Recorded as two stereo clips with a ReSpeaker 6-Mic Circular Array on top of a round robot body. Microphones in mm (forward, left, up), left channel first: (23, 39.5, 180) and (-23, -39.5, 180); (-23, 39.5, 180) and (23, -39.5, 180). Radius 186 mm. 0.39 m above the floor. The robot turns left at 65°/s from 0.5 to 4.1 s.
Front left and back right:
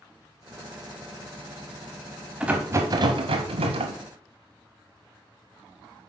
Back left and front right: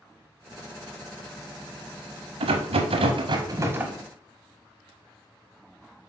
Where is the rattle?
40° right, 0.5 m; by 4.0 s 140° right, 0.5 m.